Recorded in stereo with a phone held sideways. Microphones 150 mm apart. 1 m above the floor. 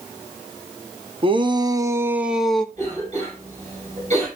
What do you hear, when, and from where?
1.2 s a shout: 35° right (ahead or behind), 1.1 m; by 2.6 s 5° left (ahead or behind), 0.8 m
2.8 s a cough: 50° right (ahead or behind), 6.5 m